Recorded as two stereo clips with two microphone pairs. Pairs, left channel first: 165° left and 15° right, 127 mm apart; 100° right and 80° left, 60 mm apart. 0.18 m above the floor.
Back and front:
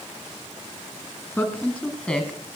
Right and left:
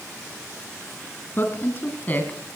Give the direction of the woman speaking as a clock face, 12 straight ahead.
4 o'clock.